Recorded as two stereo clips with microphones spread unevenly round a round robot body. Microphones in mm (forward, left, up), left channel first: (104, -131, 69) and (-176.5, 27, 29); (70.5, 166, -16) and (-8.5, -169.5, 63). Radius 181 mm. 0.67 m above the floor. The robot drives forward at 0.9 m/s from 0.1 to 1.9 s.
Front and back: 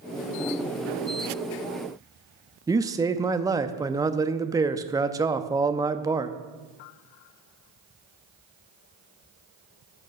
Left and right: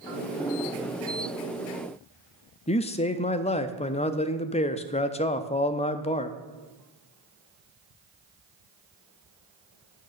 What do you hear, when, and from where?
2.7 s a man speaking: 95° left, 0.7 m